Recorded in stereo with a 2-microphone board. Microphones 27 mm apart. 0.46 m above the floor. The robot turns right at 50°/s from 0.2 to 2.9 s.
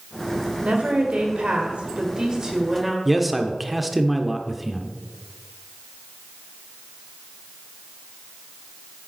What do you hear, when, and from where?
0.6 s a woman speaking: 120° right, 1.8 m; by 3.0 s 5° right, 1.8 m
3.0 s a man speaking: 5° right (ahead or behind), 0.8 m